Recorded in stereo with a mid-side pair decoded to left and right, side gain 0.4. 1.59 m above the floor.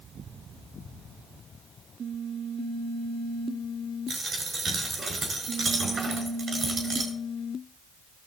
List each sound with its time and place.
4.1 s a dropped coin: 40° right, 6 m